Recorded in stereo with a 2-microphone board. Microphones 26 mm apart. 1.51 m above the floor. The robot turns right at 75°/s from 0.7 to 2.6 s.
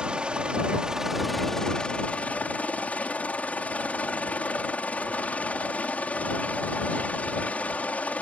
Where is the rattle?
No rattle in this recording.